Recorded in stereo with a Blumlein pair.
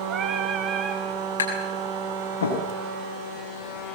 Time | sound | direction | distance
0.1 | singing | 30° right | 2.5 m
1.4 | tapping | 70° left | 7 m